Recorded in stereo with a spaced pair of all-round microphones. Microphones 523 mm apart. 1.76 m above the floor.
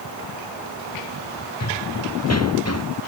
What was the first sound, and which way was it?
Running footsteps, 30° left (ahead or behind).